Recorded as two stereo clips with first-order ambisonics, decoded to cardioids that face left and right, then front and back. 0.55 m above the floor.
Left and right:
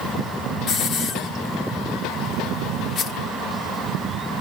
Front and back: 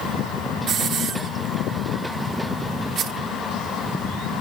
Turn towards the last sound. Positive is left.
turn(degrees=135)